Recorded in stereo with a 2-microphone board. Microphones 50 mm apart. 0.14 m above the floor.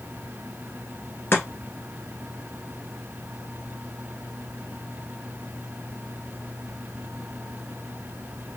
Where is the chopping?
45° left (ahead or behind), 1.4 m.